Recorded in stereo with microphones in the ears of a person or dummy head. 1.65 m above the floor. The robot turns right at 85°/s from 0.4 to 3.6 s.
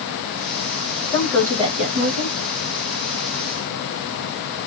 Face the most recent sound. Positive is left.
turn(degrees=10)